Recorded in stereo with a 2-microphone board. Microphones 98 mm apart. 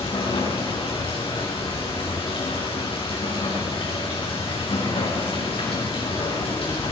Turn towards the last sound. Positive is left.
turn(degrees=65)  # may be behind; listen again after turning